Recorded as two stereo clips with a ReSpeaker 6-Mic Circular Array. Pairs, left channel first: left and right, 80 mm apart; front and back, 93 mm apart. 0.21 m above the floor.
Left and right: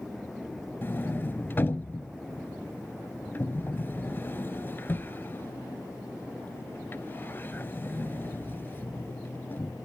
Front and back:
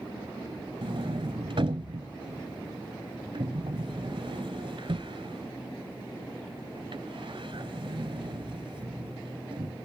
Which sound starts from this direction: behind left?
A sliding door, at 0.8 s.